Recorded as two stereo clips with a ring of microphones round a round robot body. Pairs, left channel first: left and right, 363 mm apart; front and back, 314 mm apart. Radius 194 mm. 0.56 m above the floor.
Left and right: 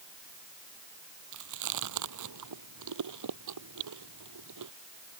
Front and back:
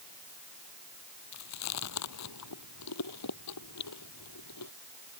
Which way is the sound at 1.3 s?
45° right.